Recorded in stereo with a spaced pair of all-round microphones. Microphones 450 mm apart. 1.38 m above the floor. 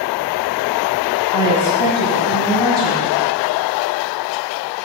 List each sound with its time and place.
1.3 s a woman speaking: 85° left, 4 m